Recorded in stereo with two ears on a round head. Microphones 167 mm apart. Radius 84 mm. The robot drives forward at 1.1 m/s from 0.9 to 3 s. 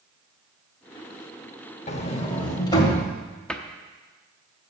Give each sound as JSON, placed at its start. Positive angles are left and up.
{"t": 1.9, "sound": "a sliding door", "side_deg": 40, "distance_m": 1.0}
{"t": 3.5, "sound": "a cupboard door", "side_deg": 5, "distance_m": 0.7}